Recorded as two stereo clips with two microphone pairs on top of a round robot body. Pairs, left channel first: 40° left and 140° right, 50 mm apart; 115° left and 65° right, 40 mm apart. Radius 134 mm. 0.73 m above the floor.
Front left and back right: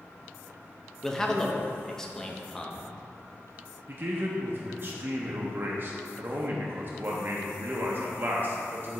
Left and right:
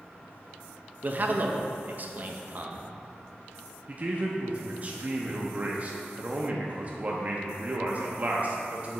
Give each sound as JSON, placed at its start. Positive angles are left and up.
{"t": 1.0, "sound": "a man speaking", "azimuth_deg": -30, "distance_m": 0.6}
{"t": 3.9, "sound": "a man speaking", "azimuth_deg": -100, "distance_m": 0.5}